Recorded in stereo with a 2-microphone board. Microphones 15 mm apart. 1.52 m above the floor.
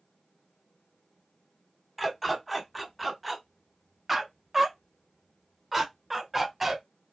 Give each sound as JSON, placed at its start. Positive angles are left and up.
{"t": 2.0, "sound": "a dog barking", "side_deg": -5, "distance_m": 1.4}